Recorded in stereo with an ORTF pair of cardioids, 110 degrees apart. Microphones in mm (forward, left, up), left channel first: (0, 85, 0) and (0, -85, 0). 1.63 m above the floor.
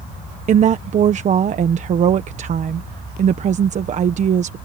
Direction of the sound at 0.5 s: 45° right.